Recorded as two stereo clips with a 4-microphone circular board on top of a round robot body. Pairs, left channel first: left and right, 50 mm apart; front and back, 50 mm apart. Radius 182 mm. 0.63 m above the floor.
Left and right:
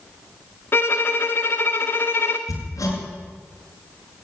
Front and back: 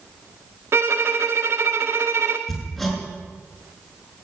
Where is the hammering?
90° left, 6 m.